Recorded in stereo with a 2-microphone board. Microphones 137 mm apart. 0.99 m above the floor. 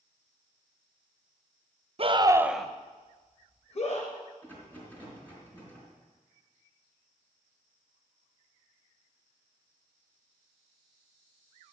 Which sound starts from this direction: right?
A scream, at 2.0 s.